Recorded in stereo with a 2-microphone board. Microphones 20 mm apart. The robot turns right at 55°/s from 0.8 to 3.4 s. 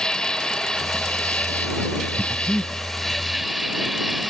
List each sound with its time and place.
0.0 s an insect: 35° left; by 4.3 s straight behind
2.2 s breathing: 10° left (ahead or behind); by 2.7 s 20° right (ahead or behind)